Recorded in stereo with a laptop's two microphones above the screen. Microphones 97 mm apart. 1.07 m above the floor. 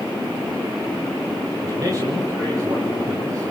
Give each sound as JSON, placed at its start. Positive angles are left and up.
{"t": 1.6, "sound": "a man speaking", "side_deg": -40, "distance_m": 6.0}